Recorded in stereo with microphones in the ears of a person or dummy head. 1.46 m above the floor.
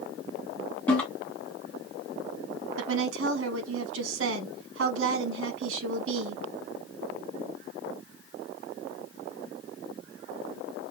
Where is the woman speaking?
75° right (ahead or behind), 0.9 m.